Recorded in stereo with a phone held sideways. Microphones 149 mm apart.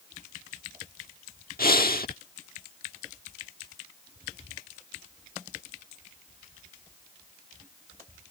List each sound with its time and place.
1.6 s breathing: 80° left